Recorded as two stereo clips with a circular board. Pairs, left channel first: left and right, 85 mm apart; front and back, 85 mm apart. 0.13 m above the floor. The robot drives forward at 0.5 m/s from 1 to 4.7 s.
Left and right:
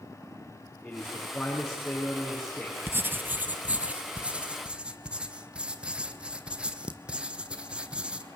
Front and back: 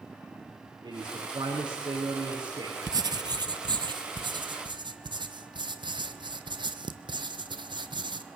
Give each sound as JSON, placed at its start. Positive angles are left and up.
{"t": 0.8, "sound": "a man speaking", "azimuth_deg": 180, "distance_m": 7.5}
{"t": 2.9, "sound": "writing", "azimuth_deg": -150, "distance_m": 0.7}